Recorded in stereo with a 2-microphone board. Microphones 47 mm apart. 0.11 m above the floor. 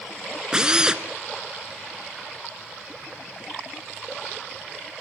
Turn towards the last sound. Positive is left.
turn(degrees=-20)  # may be behind; listen again after turning